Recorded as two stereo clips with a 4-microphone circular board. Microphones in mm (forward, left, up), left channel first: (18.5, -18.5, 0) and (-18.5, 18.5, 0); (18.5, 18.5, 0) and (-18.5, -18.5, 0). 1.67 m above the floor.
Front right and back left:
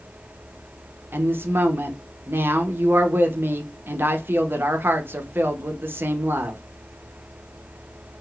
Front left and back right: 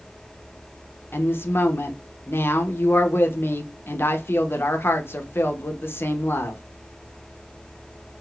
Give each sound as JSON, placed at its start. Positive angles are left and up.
{"t": 1.1, "sound": "a woman speaking", "azimuth_deg": 90, "distance_m": 0.6}